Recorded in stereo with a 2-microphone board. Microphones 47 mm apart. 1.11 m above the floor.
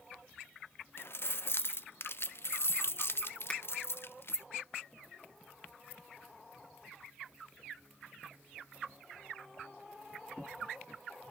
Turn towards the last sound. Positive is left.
turn(degrees=25)  # may be behind; listen again after turning